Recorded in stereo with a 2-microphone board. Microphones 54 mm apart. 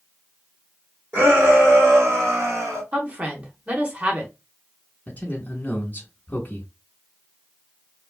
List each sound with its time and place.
1.1 s a shout: 35° right (ahead or behind), 1.3 m; by 2.8 s 60° right (ahead or behind), 1.7 m
2.9 s a woman speaking: 25° right (ahead or behind), 1.0 m
5.1 s a man speaking: 25° left (ahead or behind), 1.1 m